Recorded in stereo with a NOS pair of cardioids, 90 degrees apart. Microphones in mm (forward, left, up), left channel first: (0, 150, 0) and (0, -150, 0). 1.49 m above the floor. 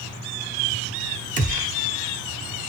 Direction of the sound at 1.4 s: 25° right.